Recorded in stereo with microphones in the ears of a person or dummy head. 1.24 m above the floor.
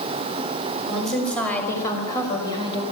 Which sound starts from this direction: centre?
A woman speaking, at 0.9 s.